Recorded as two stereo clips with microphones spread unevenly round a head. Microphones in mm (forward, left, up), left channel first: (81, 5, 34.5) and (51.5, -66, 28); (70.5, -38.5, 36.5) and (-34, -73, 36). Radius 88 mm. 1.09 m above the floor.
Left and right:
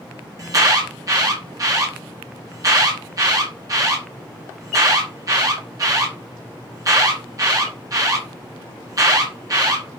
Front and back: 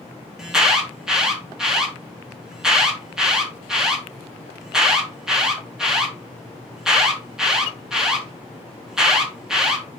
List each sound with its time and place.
0.4 s an alarm: 80° right, 3 m